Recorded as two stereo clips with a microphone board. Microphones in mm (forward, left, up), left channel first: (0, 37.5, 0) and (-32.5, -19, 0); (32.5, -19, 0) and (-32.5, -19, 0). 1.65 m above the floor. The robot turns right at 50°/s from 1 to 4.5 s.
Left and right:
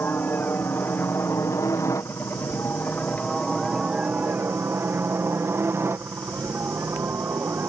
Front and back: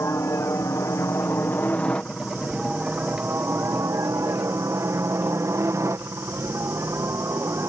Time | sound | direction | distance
0.0 | a helicopter | 15° left | ?